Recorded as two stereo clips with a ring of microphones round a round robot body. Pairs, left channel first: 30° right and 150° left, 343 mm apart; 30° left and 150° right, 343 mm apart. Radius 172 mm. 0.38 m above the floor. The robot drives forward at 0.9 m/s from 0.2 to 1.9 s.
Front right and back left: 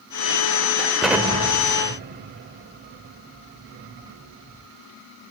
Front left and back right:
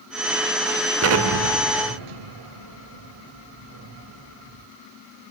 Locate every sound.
1.0 s an explosion: 120° right, 1.0 m; by 4.7 s 150° right, 1.5 m